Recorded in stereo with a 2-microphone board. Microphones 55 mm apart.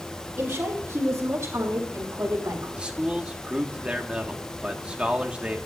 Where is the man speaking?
20° right (ahead or behind), 1.7 m.